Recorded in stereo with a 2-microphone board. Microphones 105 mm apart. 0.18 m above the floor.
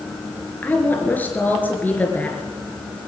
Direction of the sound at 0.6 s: 15° left (ahead or behind).